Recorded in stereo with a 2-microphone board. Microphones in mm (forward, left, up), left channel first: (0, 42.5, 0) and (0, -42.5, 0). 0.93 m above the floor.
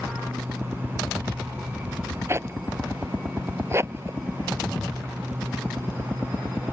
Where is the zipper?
30° right (ahead or behind).